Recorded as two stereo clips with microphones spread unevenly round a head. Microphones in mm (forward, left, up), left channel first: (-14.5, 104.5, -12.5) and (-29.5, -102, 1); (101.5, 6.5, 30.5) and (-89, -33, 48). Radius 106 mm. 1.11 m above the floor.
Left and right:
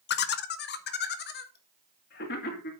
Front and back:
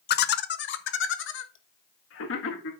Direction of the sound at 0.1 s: 45° left.